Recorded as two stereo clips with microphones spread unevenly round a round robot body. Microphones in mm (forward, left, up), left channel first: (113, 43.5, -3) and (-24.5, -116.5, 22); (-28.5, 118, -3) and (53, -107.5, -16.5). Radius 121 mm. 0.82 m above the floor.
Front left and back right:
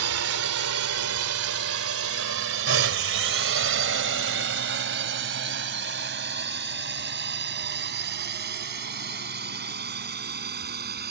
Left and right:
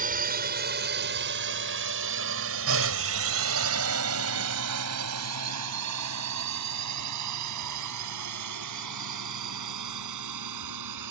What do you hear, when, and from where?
0.0 s a drone: 125° right; by 11.1 s 85° right